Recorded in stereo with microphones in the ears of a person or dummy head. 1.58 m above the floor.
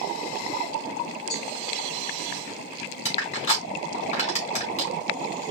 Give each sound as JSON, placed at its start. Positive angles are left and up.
{"t": 1.3, "sound": "a cowbell", "side_deg": 65, "distance_m": 2.5}
{"t": 3.0, "sound": "crushing", "side_deg": 35, "distance_m": 2.0}